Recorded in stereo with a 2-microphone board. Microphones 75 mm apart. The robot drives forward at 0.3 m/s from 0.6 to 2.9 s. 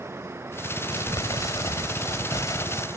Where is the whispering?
No whispering in this recording.